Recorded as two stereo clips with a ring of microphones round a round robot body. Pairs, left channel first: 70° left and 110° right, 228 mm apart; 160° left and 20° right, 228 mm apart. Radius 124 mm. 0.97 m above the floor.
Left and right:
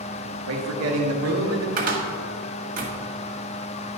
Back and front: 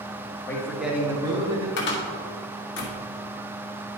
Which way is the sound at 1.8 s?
165° right.